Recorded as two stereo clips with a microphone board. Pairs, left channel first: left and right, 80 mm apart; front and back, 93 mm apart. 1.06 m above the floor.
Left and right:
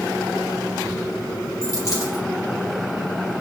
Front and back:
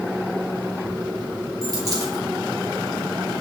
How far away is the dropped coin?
About 3 m.